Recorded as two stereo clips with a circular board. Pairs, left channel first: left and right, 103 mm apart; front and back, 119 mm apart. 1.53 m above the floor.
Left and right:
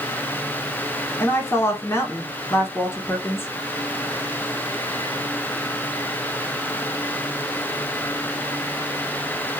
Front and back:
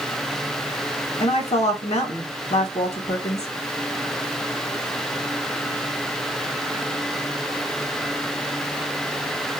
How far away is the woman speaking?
About 1.6 m.